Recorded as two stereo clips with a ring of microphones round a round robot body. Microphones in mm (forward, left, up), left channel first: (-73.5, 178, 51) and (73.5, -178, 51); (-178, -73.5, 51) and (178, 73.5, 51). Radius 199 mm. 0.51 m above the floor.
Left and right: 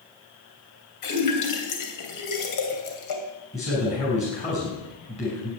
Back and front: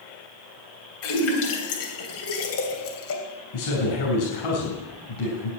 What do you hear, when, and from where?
1.0 s a splash: 150° left, 3 m
3.5 s a man speaking: 175° right, 6 m